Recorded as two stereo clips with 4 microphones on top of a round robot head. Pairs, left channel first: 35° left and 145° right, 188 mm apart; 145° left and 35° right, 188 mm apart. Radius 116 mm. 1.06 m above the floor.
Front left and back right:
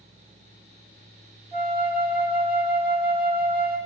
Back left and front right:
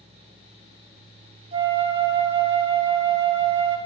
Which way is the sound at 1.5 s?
90° right.